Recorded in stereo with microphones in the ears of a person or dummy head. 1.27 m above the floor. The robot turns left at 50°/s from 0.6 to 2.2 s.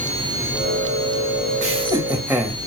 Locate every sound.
1.6 s laughter: 35° right (ahead or behind), 0.9 m; by 2.6 s 10° right (ahead or behind), 0.9 m